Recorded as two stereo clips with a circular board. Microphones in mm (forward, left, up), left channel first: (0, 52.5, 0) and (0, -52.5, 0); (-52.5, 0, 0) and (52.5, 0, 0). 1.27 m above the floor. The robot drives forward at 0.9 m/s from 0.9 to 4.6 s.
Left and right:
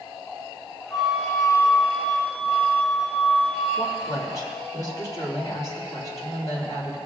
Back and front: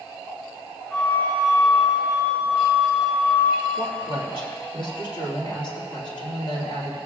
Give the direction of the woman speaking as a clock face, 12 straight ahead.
7 o'clock.